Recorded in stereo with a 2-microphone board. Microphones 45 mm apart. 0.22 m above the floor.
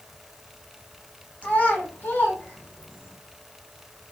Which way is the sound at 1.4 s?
35° left (ahead or behind).